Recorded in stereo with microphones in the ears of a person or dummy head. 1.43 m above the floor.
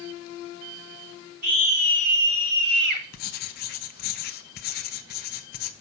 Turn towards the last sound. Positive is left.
turn(degrees=50)  # may be behind; listen again after turning